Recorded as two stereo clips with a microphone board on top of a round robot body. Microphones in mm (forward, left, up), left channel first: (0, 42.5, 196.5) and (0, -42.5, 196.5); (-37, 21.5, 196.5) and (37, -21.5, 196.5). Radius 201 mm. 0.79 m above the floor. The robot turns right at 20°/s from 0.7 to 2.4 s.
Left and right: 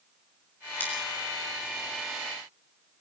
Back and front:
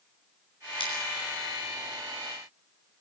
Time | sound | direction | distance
0.8 | scissors | 160° left | 8 m